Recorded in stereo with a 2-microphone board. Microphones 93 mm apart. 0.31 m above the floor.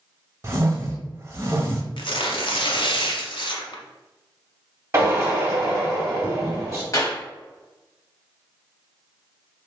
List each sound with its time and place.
0.4 s a whoosh: 35° right (ahead or behind), 0.8 m
2.0 s tearing paper: 65° left (ahead or behind), 0.6 m
4.9 s a drill: 30° right (ahead or behind), 1.3 m
6.9 s a clap: 40° left (ahead or behind), 1.2 m